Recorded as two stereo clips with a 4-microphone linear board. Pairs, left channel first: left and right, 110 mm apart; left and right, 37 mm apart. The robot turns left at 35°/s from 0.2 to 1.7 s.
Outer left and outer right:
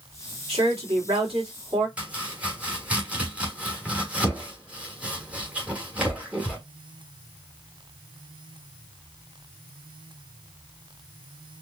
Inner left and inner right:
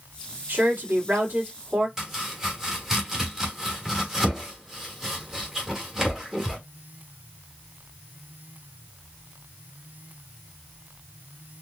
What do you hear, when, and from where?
0.5 s a woman speaking: 85° right, 2 m; by 1.9 s 130° right, 2 m
2.0 s chopping: 15° right (ahead or behind), 1.5 m